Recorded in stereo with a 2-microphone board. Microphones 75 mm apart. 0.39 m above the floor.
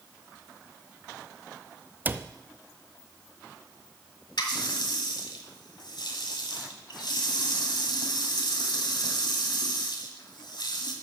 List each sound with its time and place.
2.0 s a cupboard door: 25° right (ahead or behind), 0.5 m
4.4 s a running tap: 70° left (ahead or behind), 1.8 m